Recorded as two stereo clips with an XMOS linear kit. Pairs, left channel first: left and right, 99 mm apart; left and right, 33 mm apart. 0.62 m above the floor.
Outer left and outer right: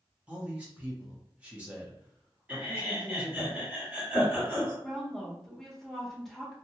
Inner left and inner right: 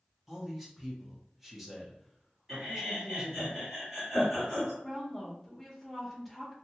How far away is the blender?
No blender in this recording.